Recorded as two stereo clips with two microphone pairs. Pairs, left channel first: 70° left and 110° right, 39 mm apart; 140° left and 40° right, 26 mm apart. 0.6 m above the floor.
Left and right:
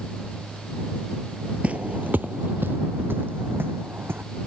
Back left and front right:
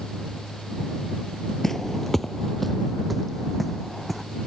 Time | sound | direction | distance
1.6 | footsteps | 145° right | ?